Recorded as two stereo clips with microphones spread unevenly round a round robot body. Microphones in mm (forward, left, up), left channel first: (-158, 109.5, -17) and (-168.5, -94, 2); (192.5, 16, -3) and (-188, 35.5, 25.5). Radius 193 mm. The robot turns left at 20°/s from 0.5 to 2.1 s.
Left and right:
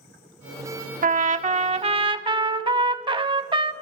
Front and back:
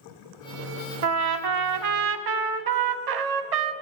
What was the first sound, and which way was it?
A trumpet, 135° right.